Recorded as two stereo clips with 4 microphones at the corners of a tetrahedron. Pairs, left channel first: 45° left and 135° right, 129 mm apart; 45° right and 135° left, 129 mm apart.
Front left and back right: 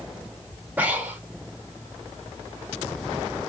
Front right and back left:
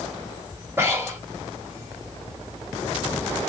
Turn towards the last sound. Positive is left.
turn(degrees=165)